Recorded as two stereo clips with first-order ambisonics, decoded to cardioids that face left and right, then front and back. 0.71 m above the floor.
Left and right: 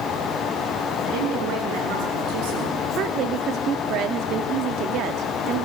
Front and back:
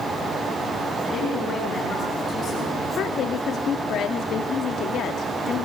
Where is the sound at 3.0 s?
50° right, 1.2 m.